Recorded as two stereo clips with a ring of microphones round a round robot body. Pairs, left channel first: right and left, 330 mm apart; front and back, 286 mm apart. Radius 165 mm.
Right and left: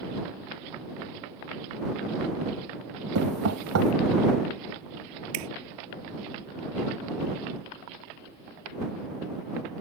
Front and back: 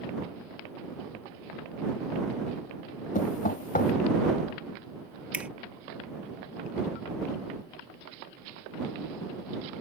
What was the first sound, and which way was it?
Knocking, 55° left.